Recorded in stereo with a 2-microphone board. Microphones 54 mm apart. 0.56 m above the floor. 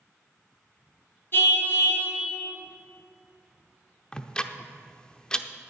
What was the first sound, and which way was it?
A car horn, 45° left (ahead or behind).